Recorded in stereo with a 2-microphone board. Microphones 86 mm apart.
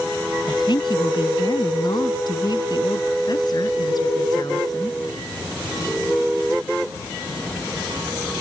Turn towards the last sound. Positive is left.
turn(degrees=50)  # may be behind; listen again after turning